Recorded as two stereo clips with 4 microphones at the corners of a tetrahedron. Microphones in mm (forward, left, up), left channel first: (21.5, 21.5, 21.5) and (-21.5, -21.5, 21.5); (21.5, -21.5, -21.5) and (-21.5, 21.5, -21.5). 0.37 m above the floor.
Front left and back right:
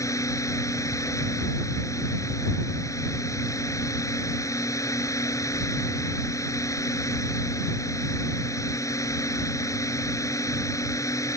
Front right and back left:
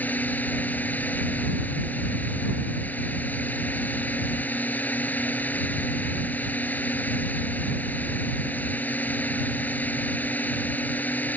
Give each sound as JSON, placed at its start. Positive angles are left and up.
{"t": 0.0, "sound": "a drone", "azimuth_deg": 20}